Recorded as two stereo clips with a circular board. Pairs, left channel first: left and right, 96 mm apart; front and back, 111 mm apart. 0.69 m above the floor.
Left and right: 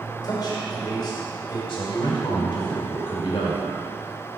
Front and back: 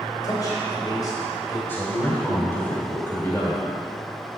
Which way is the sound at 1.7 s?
70° left.